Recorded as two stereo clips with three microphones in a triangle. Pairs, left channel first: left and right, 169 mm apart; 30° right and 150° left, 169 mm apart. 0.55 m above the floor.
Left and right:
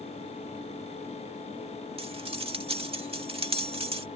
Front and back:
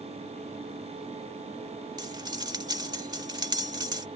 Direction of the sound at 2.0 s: 145° right.